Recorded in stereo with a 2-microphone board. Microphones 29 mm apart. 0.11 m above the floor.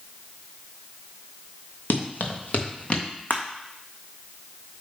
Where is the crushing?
80° left, 1.4 m.